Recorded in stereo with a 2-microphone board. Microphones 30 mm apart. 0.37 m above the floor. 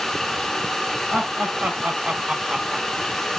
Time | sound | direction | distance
1.1 | laughter | 55° right (ahead or behind) | 2.0 m